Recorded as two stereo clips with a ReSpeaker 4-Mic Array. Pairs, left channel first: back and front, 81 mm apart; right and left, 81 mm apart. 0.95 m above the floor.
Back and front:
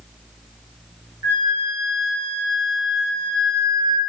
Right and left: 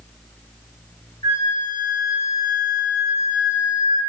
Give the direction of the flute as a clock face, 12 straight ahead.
2 o'clock.